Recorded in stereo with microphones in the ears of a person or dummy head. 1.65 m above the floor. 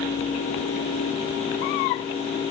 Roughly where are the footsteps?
I don't hear footsteps.